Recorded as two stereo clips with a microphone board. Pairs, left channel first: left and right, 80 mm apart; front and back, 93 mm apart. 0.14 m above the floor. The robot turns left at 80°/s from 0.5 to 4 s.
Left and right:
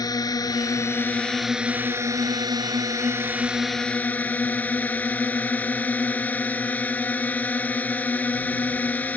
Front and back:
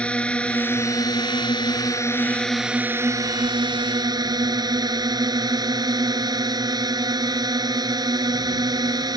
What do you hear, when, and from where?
0.0 s a drone: 75° left; by 9.2 s 155° left